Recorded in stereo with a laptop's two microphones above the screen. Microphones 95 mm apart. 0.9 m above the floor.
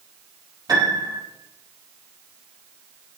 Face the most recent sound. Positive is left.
turn(degrees=-45)  # may be behind; listen again after turning